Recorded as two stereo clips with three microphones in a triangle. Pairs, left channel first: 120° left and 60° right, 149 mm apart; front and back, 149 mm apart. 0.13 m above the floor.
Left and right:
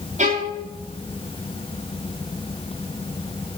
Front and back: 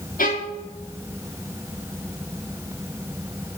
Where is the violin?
20° right, 4 m.